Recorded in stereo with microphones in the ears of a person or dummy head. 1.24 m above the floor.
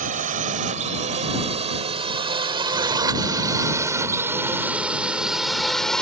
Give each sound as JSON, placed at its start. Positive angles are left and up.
{"t": 0.0, "sound": "a drone", "side_deg": -45}